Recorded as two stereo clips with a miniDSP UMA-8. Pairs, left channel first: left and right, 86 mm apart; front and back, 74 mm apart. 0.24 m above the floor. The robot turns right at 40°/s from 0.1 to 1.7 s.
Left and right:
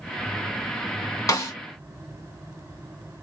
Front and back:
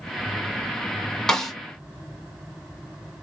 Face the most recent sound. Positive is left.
turn(degrees=95)